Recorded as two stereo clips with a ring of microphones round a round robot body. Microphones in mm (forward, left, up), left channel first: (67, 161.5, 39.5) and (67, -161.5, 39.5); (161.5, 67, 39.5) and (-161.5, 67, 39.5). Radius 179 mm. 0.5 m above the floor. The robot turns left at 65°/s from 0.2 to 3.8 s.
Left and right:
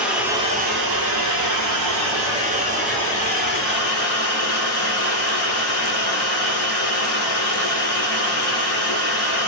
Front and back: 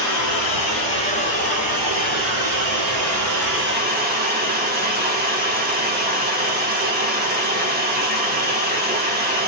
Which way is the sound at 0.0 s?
5° right.